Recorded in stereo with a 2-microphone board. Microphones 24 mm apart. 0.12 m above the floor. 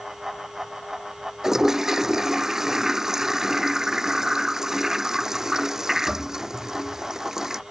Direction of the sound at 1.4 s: 20° right (ahead or behind).